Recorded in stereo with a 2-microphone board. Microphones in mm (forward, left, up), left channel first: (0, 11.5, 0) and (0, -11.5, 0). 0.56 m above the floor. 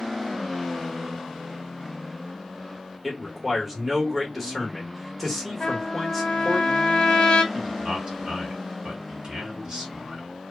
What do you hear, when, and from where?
3.0 s a man speaking: 5° right (ahead or behind), 1.3 m
5.6 s a trumpet: 40° left (ahead or behind), 0.7 m
7.5 s a man speaking: 40° right (ahead or behind), 1.5 m